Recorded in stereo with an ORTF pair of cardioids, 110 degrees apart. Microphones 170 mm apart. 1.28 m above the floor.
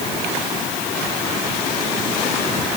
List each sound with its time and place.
Only background noise.